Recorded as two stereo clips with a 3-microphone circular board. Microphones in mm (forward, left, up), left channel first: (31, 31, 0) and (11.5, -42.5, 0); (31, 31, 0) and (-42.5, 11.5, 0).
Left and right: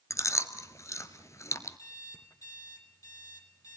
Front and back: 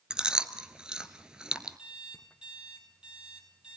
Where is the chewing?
115° left, 1.1 m.